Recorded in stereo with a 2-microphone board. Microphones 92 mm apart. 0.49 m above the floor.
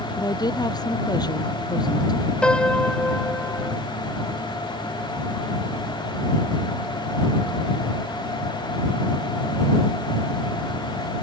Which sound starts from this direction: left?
A woman speaking, at 0.2 s.